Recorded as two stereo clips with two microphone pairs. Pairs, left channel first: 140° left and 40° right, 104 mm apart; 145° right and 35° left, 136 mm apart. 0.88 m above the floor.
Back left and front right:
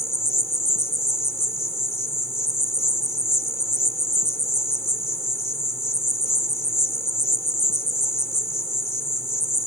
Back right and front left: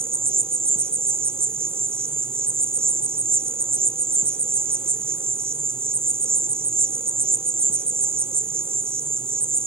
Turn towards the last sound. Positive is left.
turn(degrees=75)